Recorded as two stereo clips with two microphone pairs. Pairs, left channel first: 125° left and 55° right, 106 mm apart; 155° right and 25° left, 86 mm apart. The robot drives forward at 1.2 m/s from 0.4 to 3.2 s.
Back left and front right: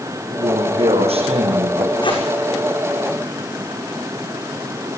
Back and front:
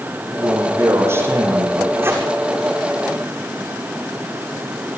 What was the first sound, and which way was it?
A man speaking, 30° right.